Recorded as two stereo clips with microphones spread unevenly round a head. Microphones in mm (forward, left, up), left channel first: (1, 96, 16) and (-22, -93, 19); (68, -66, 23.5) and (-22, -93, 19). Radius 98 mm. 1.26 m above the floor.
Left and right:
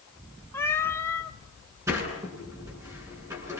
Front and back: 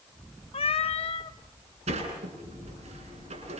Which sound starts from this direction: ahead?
A cat meowing, at 0.5 s.